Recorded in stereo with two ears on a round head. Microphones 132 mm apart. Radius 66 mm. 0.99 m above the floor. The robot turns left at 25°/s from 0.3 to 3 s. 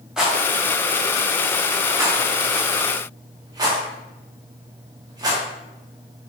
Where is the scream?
I don't hear a scream.